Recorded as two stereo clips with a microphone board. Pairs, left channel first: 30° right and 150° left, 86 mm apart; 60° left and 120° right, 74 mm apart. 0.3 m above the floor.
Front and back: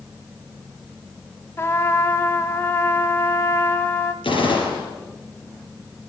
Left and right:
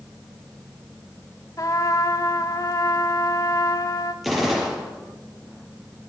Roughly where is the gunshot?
Ahead right.